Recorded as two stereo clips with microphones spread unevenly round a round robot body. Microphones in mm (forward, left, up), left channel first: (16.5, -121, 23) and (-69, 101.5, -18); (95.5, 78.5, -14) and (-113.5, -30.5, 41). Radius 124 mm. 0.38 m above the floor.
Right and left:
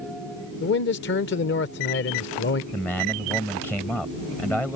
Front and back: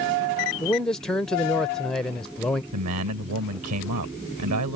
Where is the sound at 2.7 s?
160° right.